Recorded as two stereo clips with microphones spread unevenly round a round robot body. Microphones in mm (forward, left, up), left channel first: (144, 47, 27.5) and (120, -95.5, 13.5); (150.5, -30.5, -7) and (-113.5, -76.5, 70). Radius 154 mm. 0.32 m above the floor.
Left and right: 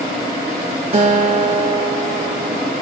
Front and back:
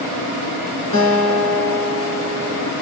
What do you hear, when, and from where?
0.9 s a guitar: 55° right, 2.5 m